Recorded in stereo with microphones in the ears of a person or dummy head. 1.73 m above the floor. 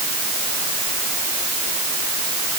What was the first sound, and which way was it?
Only background noise.